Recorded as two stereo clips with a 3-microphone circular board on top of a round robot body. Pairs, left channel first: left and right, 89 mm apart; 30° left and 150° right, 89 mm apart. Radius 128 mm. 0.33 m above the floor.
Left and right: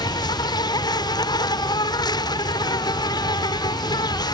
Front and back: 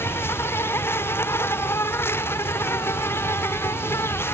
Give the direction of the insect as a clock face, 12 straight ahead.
9 o'clock.